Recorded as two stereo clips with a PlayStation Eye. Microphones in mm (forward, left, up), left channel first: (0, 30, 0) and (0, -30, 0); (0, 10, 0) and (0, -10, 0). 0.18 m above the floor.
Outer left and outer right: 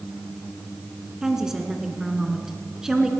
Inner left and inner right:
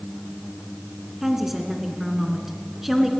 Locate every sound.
1.2 s a woman speaking: 10° right (ahead or behind), 2.5 m